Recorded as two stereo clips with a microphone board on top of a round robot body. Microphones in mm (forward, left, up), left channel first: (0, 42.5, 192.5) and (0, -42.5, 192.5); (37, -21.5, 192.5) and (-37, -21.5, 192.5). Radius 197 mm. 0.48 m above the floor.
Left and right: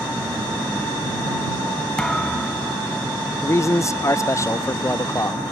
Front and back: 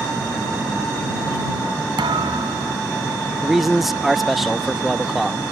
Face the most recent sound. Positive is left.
turn(degrees=95)